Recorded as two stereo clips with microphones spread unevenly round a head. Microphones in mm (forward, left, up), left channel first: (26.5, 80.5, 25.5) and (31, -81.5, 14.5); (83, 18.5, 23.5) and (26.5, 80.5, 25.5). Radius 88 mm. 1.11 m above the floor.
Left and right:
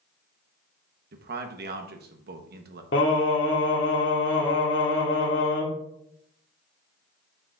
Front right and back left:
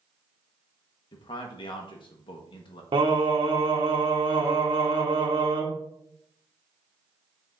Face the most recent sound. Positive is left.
turn(degrees=120)